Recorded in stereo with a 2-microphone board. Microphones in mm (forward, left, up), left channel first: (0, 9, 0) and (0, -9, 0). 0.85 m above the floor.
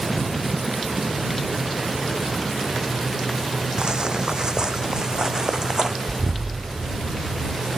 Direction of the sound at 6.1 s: 30° right (ahead or behind).